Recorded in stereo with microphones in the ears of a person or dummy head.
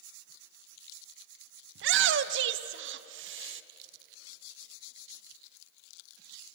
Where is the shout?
70° right (ahead or behind), 1.0 m.